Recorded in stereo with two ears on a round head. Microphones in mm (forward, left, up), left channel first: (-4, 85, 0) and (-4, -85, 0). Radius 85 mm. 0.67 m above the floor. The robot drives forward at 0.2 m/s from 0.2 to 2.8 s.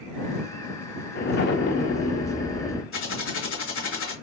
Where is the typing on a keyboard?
80° left, 3 m.